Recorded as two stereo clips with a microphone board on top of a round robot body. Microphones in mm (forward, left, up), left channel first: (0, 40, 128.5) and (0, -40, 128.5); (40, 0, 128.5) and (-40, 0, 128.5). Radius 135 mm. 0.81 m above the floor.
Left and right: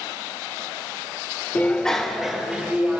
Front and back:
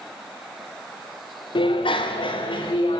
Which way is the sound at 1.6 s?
15° left.